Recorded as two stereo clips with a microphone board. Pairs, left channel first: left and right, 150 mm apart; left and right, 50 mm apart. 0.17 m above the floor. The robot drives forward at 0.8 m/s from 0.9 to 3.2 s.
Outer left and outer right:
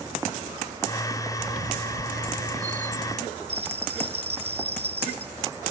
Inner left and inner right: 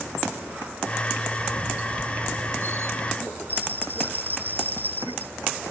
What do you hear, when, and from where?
1.4 s a squeak: 80° right; by 3.2 s 60° right (ahead or behind)
3.5 s a bell: 45° right (ahead or behind)